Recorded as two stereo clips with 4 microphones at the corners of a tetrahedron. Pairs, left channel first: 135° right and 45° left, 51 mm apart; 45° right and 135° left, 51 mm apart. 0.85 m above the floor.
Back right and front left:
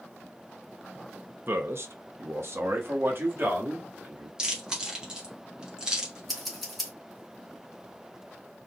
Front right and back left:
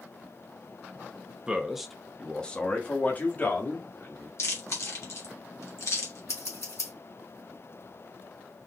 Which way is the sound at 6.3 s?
45° right.